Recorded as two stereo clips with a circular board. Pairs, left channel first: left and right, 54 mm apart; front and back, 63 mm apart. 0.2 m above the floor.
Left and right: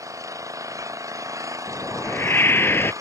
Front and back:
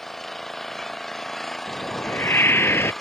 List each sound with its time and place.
0.0 s an engine running: 85° right
1.7 s a whoosh: 50° left